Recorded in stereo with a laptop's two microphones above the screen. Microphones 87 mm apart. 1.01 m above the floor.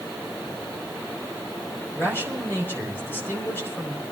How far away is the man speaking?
About 4 m.